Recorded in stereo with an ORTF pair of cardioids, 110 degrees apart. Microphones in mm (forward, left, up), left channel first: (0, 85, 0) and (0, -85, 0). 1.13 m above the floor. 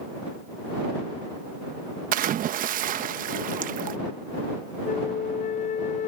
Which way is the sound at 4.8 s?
45° left.